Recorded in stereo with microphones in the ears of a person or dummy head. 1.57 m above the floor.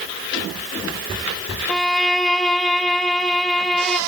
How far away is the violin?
About 0.6 m.